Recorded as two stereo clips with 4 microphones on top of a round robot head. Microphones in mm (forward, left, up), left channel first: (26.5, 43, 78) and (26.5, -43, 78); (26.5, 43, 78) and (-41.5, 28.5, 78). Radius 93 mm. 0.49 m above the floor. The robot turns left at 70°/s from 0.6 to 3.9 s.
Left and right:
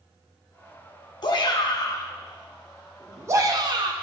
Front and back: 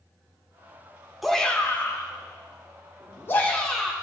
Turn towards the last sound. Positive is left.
turn(degrees=-85)